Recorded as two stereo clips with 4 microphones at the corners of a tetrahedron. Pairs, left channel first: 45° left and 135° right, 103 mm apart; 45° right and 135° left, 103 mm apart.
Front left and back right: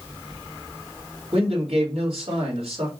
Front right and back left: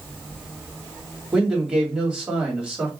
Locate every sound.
1.3 s a man speaking: 145° right, 2.5 m